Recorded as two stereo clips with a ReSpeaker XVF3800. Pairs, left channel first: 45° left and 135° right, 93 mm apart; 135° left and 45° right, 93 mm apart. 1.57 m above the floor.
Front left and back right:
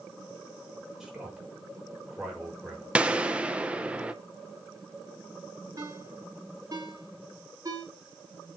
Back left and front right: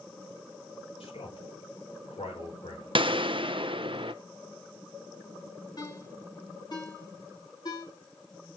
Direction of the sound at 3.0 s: 60° right.